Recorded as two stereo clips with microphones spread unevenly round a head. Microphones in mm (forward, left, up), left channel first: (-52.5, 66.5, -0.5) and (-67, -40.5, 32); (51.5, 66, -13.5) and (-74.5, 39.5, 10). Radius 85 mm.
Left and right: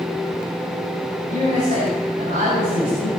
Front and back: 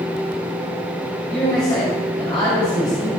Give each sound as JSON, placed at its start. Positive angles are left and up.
{"t": 1.3, "sound": "a man speaking", "azimuth_deg": -60, "distance_m": 6.5}